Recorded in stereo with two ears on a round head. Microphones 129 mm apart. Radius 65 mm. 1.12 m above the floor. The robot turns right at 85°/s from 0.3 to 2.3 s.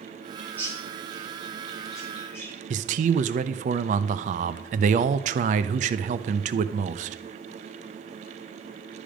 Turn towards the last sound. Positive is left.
turn(degrees=-55)  # may be behind; listen again after turning